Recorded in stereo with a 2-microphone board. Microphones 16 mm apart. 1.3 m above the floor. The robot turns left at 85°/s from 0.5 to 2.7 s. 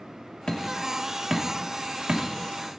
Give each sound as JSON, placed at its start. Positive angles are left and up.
{"t": 0.5, "sound": "hammering", "side_deg": 60, "distance_m": 3.0}